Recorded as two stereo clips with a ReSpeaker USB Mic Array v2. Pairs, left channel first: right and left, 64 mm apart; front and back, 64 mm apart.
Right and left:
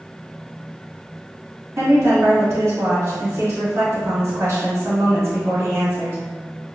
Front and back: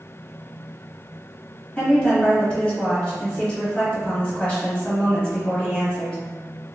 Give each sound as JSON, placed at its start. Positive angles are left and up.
{"t": 1.8, "sound": "a woman speaking", "azimuth_deg": 65, "distance_m": 1.5}